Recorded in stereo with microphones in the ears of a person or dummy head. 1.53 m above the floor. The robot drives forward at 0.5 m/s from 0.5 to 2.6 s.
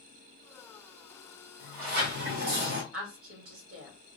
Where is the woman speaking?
85° right, 1.6 m.